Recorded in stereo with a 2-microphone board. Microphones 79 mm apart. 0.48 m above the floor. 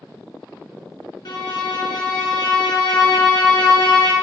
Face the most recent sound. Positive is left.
turn(degrees=65)  # may be behind; listen again after turning